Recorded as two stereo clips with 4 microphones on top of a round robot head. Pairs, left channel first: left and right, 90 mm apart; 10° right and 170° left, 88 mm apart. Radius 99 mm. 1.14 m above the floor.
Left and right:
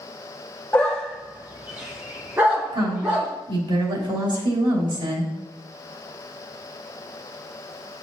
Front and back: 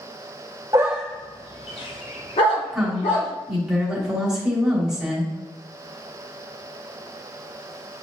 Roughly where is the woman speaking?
Right.